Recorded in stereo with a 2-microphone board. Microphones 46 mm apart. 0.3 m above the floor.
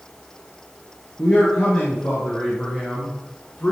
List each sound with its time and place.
1.2 s a man speaking: 35° left (ahead or behind), 4.5 m; by 3.7 s 40° left (ahead or behind), 3 m